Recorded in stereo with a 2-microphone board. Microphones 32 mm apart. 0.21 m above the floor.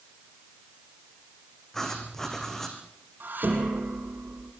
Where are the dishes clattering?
70° right (ahead or behind), 6.5 m.